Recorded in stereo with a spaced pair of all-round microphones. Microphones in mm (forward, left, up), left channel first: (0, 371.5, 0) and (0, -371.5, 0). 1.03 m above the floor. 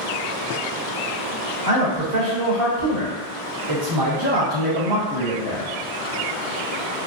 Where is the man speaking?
75° right (ahead or behind), 1.6 m; by 5.7 s 25° left (ahead or behind), 1.2 m.